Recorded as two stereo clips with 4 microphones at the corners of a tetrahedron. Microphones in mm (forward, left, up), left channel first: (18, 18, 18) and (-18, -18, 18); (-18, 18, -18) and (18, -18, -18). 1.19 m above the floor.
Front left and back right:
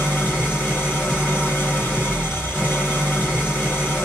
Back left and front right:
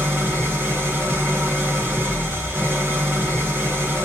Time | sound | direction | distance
0.0 | an engine running | straight ahead | 1.3 m